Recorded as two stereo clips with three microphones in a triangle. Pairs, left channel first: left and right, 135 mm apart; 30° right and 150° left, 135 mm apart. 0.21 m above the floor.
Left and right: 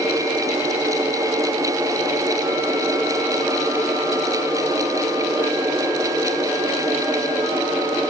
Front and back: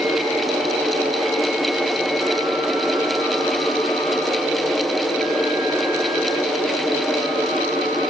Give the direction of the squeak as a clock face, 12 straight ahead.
No squeak in this recording.